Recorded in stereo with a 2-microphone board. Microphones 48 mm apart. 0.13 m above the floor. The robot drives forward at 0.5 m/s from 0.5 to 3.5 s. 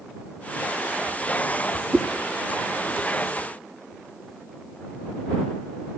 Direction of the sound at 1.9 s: 15° right (ahead or behind).